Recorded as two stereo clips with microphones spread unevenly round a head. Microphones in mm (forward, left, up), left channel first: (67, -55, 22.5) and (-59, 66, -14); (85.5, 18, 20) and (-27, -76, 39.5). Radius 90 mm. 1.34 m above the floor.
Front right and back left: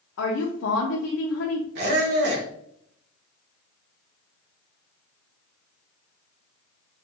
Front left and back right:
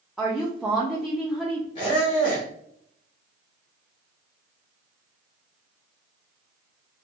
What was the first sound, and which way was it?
A woman speaking, 55° right.